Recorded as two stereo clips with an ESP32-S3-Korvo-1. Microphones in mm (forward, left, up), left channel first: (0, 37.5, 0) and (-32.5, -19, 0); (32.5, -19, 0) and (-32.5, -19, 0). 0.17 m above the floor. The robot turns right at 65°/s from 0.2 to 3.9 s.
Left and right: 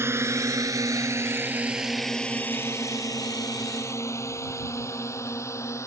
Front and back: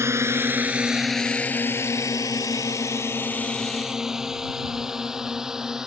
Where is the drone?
150° right; by 5.9 s 100° left.